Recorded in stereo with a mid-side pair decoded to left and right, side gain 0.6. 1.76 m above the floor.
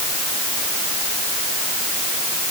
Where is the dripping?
I don't hear dripping.